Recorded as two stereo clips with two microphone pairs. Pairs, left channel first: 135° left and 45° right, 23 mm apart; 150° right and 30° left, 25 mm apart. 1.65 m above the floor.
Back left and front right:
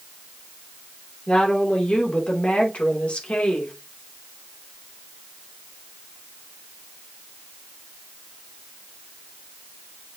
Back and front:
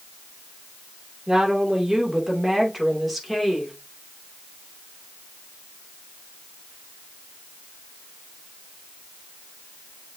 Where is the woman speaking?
95° left, 3 m; by 3.7 s 125° left, 3 m.